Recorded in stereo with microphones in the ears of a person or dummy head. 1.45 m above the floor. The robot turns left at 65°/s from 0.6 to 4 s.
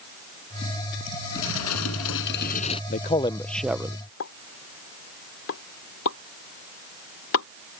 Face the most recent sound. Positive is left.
turn(degrees=75)  # may be behind; listen again after turning